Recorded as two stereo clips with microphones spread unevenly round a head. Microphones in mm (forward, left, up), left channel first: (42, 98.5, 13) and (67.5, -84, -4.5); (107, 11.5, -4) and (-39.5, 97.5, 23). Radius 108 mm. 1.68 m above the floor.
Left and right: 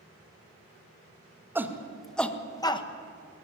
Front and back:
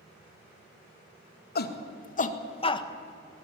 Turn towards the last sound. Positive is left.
turn(degrees=35)